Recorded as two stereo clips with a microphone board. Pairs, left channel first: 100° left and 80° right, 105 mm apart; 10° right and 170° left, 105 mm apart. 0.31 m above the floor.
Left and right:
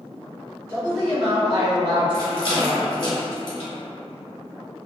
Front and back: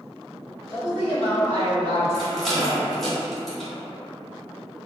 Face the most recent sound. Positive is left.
turn(degrees=75)